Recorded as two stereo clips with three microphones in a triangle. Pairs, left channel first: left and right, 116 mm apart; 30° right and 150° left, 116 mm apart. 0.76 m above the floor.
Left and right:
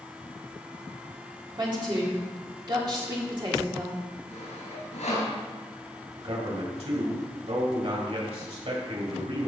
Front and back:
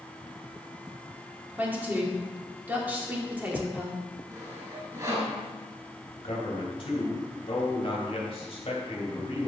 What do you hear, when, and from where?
1.6 s a woman speaking: 135° right, 2 m
4.3 s sawing: 95° left, 3.5 m
6.2 s a man speaking: 65° right, 3 m